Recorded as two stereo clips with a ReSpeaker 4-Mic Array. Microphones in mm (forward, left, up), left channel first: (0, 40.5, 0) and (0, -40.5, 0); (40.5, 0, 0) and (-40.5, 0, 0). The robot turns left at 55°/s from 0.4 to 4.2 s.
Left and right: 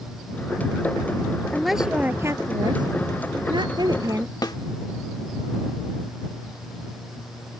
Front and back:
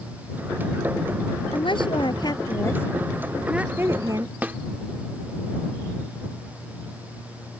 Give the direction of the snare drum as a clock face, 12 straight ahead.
8 o'clock.